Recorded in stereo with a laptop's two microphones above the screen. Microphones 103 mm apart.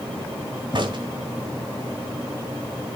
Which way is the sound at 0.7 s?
50° right (ahead or behind).